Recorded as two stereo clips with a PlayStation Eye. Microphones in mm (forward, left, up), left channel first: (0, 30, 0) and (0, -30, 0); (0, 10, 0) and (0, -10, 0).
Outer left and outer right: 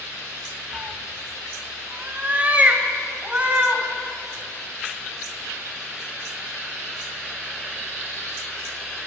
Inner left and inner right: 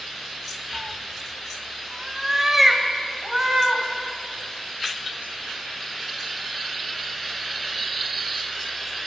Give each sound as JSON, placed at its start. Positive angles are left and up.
{"t": 0.7, "sound": "a cat meowing", "side_deg": -30, "distance_m": 0.7}